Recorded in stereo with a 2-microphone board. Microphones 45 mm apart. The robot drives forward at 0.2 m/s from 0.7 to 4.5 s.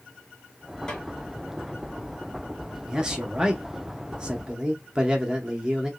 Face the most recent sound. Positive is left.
turn(degrees=-15)  # may be behind; listen again after turning